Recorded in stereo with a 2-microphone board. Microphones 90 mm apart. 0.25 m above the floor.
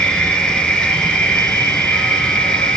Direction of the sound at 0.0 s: 10° left (ahead or behind).